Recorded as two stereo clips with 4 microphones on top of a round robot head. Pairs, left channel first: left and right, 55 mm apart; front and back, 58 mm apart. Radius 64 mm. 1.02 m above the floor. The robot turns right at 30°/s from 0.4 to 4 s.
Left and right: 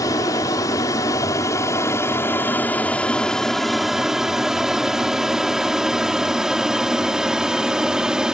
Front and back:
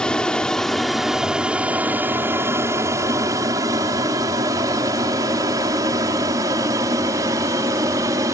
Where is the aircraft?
75° left; by 8.3 s 165° right.